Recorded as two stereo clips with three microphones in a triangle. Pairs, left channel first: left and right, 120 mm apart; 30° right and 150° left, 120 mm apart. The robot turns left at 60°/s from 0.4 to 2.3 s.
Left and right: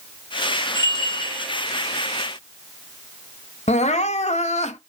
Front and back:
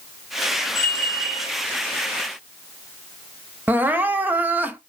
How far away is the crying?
About 0.5 m.